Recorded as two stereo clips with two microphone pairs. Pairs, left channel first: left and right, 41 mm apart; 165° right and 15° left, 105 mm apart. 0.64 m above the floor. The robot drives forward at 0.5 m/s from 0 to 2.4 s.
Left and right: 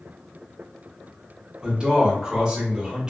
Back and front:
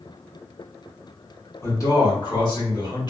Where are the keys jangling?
I don't hear keys jangling.